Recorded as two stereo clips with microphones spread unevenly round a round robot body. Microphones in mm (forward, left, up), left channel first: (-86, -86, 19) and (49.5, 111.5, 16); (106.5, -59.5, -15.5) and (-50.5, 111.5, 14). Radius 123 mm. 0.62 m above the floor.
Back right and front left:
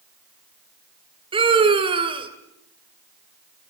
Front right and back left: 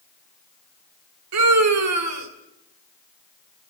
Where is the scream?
125° left, 2.5 m.